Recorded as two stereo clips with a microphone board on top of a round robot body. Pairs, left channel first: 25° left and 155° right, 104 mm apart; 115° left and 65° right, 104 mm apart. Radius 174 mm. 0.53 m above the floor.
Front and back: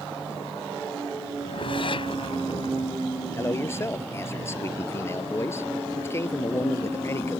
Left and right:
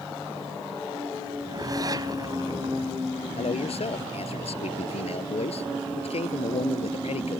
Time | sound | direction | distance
1.4 | a whoosh | 15° right | ?
3.4 | a man speaking | 90° left | ?